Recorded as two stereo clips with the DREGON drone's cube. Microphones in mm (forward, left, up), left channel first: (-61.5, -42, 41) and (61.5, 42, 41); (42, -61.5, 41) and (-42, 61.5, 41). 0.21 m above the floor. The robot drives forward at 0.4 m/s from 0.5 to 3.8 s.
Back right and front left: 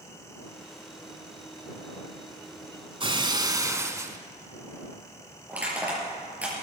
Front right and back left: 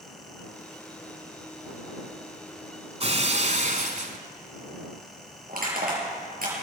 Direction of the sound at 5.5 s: 115° left.